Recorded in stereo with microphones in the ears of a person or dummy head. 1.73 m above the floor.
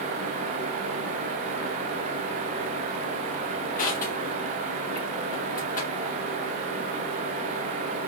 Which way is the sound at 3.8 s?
50° left (ahead or behind).